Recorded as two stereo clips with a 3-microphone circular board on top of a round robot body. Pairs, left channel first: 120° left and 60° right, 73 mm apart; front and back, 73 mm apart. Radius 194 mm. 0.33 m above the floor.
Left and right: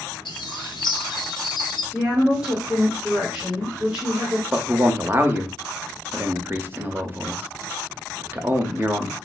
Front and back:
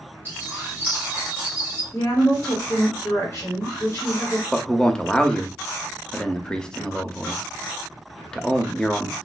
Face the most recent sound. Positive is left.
turn(degrees=-70)